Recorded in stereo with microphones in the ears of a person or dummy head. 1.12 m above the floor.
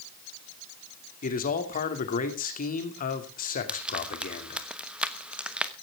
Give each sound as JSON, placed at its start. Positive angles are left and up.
{"t": 1.2, "sound": "a man speaking", "side_deg": 45, "distance_m": 2.5}
{"t": 3.7, "sound": "frying", "side_deg": -5, "distance_m": 1.1}